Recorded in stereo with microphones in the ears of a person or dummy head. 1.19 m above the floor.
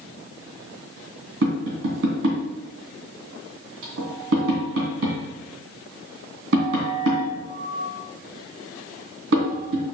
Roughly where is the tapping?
Right.